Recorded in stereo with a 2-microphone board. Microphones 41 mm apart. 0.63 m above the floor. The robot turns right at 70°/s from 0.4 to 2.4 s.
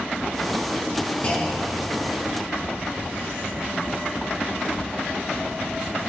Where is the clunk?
145° left, 4.5 m; by 2.0 s 160° right, 4.5 m.